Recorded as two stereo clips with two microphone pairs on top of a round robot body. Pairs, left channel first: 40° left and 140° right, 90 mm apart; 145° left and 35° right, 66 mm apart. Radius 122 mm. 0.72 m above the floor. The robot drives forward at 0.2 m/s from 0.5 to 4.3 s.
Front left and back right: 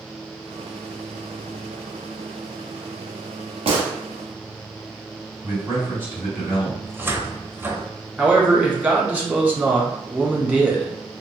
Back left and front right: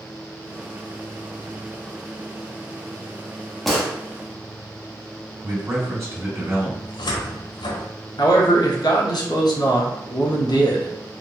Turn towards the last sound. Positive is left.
turn(degrees=150)